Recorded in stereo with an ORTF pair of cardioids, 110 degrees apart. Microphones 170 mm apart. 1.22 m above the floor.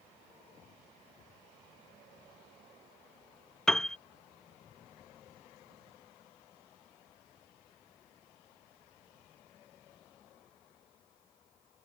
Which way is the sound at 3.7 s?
5° left.